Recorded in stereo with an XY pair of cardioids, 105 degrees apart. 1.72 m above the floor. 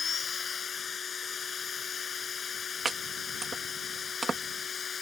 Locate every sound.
0.0 s a machine running: 45° left
2.9 s chopping: 30° right